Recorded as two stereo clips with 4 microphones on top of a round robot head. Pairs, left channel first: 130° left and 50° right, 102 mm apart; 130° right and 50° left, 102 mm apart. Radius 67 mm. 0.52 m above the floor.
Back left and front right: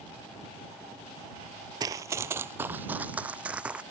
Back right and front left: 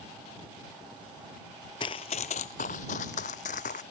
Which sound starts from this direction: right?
Running footsteps, at 1.8 s.